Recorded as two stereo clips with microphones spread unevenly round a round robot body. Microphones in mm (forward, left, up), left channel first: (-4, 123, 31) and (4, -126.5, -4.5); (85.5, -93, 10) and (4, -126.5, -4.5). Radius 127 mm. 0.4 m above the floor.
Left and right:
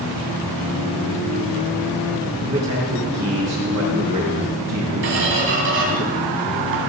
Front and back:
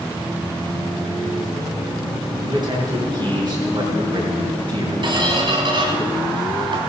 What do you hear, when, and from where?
2.4 s a man speaking: 125° right, 4 m
5.0 s a squeak: 130° right, 2.5 m